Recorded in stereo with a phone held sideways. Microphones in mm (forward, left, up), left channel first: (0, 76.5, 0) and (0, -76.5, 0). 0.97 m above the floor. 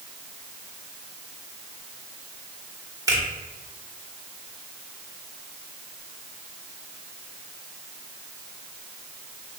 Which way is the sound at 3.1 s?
20° right (ahead or behind).